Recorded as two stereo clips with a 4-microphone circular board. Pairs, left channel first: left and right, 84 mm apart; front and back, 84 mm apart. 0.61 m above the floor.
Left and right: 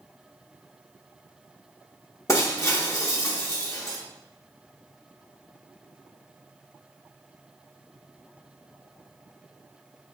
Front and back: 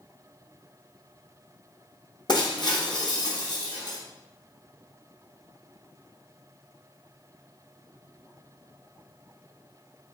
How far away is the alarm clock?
No alarm clock in this recording.